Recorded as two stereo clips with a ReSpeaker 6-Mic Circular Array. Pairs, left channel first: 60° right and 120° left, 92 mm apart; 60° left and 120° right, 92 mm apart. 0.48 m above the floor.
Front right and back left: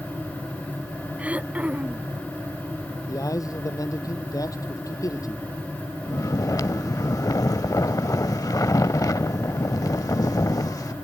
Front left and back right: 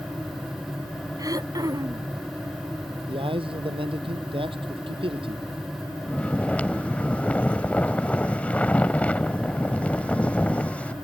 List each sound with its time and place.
1.2 s throat clearing: 165° right
3.1 s a man speaking: 110° right
6.1 s snoring: 15° right